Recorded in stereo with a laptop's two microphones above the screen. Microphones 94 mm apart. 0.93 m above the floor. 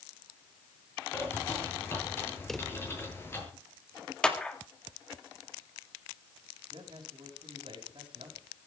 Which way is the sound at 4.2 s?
10° left (ahead or behind).